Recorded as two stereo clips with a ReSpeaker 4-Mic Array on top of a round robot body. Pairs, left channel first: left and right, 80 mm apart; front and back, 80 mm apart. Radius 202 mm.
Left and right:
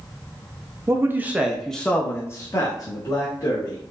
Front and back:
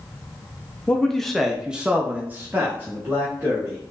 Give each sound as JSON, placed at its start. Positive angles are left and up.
{"t": 0.9, "sound": "a man speaking", "azimuth_deg": -70, "distance_m": 0.9}